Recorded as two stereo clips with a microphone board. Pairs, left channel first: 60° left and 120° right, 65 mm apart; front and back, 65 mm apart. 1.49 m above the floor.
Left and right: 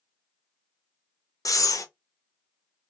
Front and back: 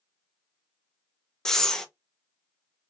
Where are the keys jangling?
I don't hear keys jangling.